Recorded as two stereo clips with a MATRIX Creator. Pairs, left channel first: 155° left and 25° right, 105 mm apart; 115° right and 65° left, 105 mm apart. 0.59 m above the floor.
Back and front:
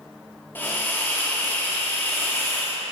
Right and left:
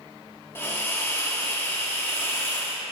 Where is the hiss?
155° right, 1.4 m.